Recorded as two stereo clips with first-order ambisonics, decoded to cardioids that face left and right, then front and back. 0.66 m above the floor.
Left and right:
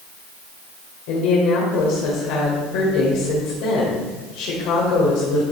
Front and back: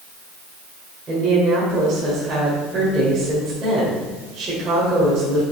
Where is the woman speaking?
110° left, 2 m.